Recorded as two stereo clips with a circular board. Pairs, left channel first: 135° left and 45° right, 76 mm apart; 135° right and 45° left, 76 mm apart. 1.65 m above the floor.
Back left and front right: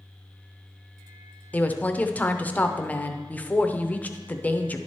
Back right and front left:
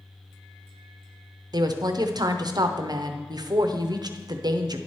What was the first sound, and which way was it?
A woman speaking, 65° left.